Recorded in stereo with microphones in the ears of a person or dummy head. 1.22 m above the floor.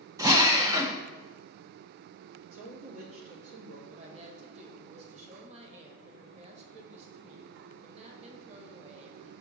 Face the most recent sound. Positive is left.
turn(degrees=-35)  # may be behind; listen again after turning